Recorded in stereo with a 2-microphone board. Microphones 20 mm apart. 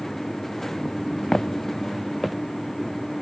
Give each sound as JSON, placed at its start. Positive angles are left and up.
{"t": 1.3, "sound": "footsteps", "side_deg": 30, "distance_m": 0.8}